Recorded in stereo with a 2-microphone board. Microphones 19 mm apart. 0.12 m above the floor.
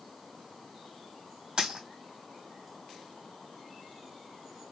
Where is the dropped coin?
50° right (ahead or behind), 2.5 m.